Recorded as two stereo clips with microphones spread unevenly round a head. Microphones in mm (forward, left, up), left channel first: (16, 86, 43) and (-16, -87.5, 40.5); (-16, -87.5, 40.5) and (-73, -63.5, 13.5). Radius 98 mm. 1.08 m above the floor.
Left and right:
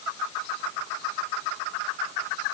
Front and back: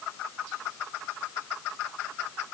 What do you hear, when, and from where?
Only background noise.